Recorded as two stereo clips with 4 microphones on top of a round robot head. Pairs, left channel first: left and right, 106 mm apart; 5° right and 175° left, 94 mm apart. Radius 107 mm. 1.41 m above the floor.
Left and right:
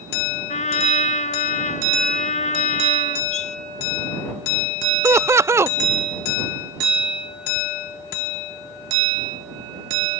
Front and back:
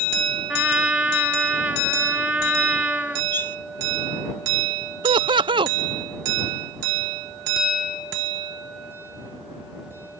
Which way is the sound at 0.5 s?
100° left.